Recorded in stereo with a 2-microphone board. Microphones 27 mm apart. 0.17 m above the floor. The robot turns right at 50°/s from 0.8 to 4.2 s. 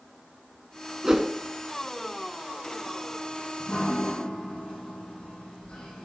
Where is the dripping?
50° left, 4 m; by 6.0 s 80° left, 4 m.